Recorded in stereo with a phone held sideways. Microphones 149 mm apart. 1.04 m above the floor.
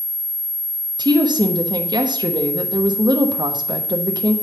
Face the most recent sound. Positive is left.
turn(degrees=-30)  # may be behind; listen again after turning